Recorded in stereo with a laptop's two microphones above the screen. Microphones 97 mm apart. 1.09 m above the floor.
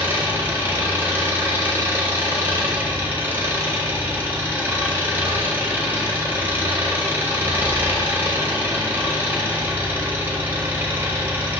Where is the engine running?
20° right (ahead or behind), 1.0 m.